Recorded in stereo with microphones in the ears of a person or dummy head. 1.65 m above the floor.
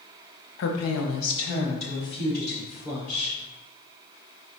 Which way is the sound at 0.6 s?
65° left (ahead or behind).